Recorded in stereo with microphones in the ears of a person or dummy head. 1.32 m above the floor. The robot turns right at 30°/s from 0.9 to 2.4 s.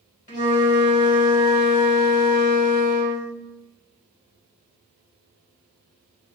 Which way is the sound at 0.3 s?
45° left.